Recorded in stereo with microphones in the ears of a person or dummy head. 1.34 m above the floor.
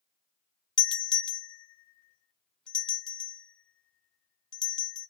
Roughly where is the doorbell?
Centre.